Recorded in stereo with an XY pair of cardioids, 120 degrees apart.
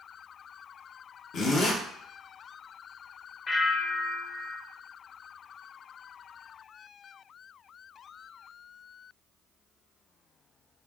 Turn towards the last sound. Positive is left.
turn(degrees=40)